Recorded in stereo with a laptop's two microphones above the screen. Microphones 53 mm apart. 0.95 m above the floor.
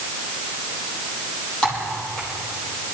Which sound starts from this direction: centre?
Typing on a keyboard, at 1.6 s.